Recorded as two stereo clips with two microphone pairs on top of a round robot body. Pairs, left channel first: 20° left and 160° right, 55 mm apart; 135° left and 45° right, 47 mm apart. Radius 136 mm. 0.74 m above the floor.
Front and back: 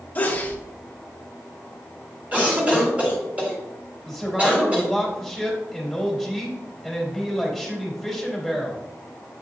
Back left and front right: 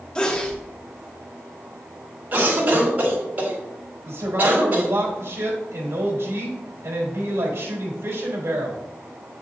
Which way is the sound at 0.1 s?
70° left.